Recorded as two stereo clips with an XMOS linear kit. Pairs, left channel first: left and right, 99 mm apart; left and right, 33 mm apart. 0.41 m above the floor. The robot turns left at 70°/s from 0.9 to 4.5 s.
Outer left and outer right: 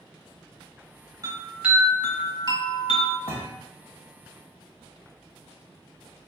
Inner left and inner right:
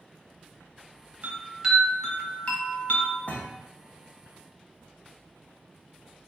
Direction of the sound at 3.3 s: 75° left (ahead or behind).